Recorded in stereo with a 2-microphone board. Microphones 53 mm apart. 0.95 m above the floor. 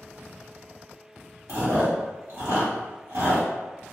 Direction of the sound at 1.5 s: 55° right (ahead or behind).